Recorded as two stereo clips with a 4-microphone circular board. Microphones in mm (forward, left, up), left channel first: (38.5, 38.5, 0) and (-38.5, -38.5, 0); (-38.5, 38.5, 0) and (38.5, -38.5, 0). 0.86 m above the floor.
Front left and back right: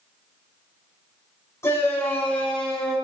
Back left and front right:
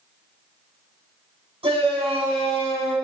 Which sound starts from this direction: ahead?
A shout, at 1.6 s.